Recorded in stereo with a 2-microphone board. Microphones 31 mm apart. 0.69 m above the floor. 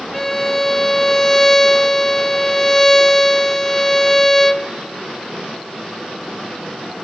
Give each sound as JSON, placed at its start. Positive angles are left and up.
{"t": 0.1, "sound": "a violin", "side_deg": 10, "distance_m": 0.6}